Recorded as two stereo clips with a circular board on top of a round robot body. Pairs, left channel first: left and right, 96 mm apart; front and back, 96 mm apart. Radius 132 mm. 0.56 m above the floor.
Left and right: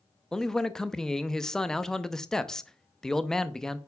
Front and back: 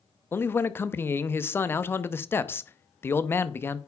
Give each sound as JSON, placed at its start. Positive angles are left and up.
{"t": 0.3, "sound": "a man speaking", "azimuth_deg": 15, "distance_m": 0.8}